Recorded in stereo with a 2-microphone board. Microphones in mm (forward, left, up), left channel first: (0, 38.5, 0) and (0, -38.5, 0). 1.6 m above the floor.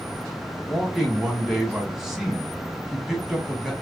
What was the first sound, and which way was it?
A man speaking, 5° right (ahead or behind).